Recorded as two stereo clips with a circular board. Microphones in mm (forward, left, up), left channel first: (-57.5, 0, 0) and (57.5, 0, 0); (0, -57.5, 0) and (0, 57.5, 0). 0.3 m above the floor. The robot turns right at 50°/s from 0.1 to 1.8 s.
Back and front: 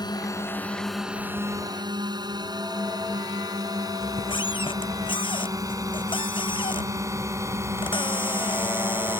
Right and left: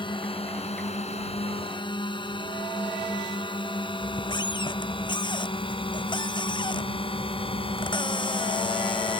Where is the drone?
130° right; by 9.2 s 65° right.